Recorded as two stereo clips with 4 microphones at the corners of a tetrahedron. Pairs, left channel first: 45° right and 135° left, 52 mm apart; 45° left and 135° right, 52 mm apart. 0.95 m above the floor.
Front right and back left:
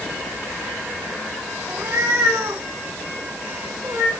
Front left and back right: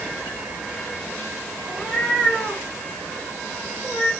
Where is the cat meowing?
105° left, 4 m.